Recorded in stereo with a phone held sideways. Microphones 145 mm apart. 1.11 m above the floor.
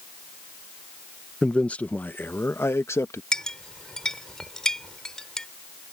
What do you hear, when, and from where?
1.4 s a man speaking: 5° left (ahead or behind); by 3.2 s 20° left (ahead or behind)
3.3 s a clink: 5° left (ahead or behind)